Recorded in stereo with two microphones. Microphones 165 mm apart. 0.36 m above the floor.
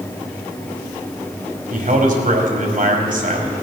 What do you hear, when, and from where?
1.7 s a man speaking: 55° right (ahead or behind), 2.0 m